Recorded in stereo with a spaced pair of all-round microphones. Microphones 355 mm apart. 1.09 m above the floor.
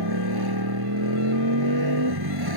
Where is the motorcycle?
85° right.